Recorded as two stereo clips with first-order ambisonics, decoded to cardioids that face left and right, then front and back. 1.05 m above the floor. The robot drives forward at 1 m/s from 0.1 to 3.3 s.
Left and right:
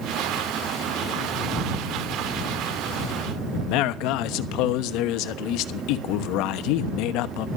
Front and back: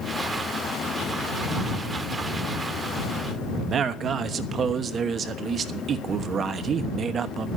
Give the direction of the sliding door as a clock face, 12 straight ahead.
I don't hear a sliding door.